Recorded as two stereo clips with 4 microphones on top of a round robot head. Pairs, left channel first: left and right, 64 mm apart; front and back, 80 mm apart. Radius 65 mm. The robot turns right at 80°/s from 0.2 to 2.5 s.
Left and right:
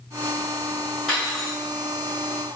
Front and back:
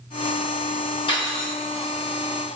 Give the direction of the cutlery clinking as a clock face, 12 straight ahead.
12 o'clock.